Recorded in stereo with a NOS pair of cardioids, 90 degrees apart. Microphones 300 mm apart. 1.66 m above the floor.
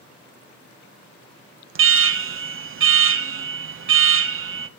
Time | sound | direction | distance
1.8 | an alarm | 45° right | 1.1 m